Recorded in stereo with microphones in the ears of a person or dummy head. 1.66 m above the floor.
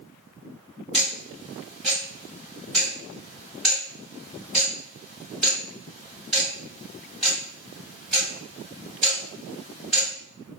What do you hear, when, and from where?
0.9 s ticking: 5° left (ahead or behind), 1.0 m